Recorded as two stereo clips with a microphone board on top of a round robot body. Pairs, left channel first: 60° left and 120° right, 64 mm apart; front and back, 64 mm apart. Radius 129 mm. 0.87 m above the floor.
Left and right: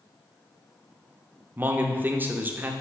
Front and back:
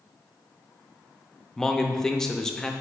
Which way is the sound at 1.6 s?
80° right.